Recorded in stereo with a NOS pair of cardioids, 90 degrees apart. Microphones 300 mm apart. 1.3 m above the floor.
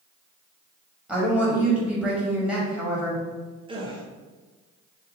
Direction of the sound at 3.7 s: 20° right.